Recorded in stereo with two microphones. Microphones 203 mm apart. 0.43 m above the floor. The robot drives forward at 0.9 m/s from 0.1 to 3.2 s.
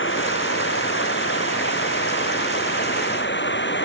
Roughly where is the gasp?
I don't hear a gasp.